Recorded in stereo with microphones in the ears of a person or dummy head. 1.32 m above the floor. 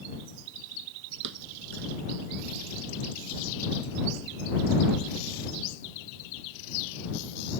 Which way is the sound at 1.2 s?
60° right (ahead or behind).